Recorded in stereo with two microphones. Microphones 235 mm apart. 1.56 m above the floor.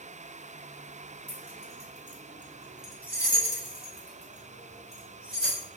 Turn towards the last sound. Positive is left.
turn(degrees=70)  # may be behind; listen again after turning